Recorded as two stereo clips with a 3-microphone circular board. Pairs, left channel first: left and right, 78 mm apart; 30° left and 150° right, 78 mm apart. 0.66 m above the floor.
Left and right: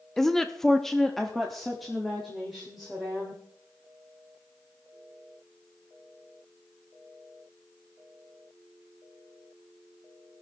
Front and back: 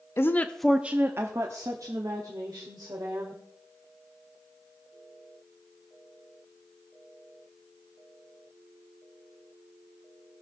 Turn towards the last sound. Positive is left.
turn(degrees=180)